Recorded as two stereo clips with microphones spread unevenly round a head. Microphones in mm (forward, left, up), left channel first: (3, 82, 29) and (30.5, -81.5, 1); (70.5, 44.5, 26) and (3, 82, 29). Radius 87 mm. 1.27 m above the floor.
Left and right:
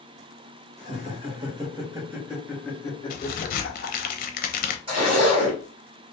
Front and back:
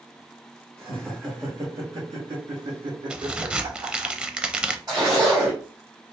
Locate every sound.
0.8 s laughter: 135° right, 1.6 m; by 4.1 s 130° left, 1.1 m
3.1 s a crack: 75° left, 0.5 m
4.9 s a zipper: 145° right, 1.8 m